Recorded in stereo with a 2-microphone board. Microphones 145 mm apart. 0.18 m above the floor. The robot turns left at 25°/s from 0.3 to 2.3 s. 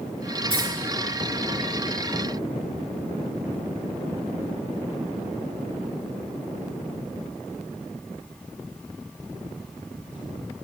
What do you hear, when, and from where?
0.5 s keys jangling: 40° right (ahead or behind), 2 m; by 0.7 s 45° right (ahead or behind), 2 m